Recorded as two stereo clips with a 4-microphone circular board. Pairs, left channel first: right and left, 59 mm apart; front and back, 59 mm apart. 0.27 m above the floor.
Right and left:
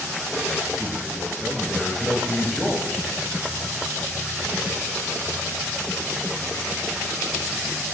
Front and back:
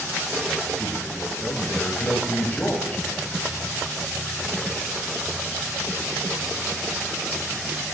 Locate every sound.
0.8 s a man speaking: 10° right, 1.2 m